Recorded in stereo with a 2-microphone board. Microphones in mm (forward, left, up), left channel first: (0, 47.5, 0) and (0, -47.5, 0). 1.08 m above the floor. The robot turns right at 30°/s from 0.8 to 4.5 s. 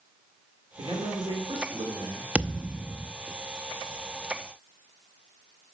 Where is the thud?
10° right (ahead or behind), 0.5 m; by 3.1 s centre (ahead or behind), 0.5 m.